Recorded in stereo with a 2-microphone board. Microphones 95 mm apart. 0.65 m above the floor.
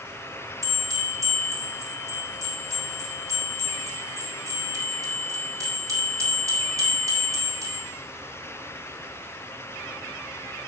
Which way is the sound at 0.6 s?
35° right (ahead or behind).